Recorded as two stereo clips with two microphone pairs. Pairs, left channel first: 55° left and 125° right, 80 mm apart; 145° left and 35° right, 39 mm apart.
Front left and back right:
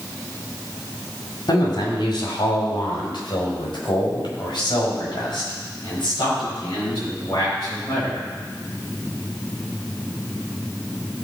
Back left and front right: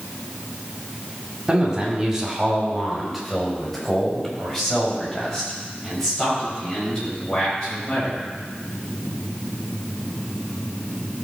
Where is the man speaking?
35° left, 2.5 m; by 8.2 s 75° left, 9.5 m.